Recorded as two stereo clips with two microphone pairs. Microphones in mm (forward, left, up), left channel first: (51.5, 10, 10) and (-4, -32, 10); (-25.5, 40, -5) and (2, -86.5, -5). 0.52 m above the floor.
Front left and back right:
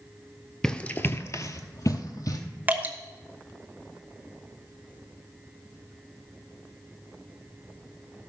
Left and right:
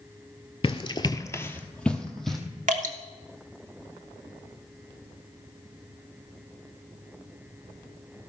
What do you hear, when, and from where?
0.6 s running footsteps: 110° left, 0.6 m; by 2.4 s 10° left, 1.3 m
2.7 s dripping: 80° right, 1.1 m